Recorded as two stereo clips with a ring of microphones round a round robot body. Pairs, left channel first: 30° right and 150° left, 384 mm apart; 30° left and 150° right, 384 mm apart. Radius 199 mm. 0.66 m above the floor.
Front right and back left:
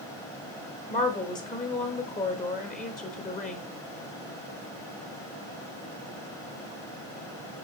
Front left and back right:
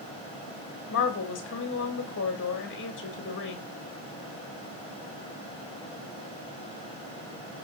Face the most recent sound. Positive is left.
turn(degrees=20)